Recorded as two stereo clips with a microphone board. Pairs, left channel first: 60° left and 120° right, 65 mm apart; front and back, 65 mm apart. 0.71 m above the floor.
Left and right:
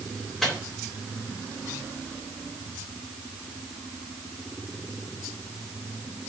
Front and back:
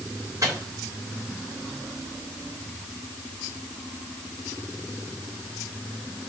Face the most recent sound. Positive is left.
turn(degrees=145)